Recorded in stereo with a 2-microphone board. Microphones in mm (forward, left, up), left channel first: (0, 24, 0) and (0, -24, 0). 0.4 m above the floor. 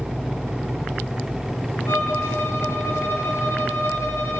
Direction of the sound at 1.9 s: 75° left (ahead or behind).